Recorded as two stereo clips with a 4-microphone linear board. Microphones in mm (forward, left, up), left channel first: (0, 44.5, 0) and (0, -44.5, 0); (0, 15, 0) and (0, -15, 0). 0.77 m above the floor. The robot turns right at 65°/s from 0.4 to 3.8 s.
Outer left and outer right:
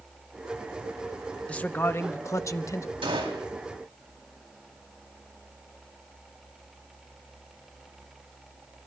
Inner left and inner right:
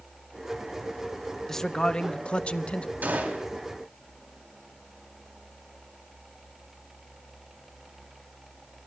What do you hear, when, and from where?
1.5 s a man speaking: 20° left, 0.7 m; by 2.9 s 115° left, 0.7 m
3.0 s a gunshot: 85° right, 3.5 m; by 3.5 s 65° right (ahead or behind), 3.5 m